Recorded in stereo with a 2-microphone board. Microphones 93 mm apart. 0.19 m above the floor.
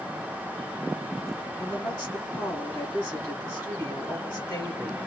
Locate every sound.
1.6 s a woman speaking: 40° left (ahead or behind), 2 m